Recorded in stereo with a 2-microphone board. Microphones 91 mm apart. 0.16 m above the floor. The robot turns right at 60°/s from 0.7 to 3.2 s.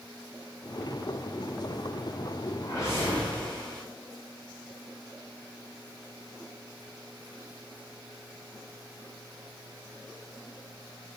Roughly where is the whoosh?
Behind left.